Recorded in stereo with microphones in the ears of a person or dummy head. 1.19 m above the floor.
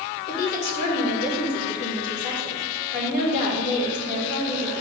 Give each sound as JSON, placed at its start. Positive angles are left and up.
{"t": 0.3, "sound": "a woman speaking", "side_deg": 55, "distance_m": 2.5}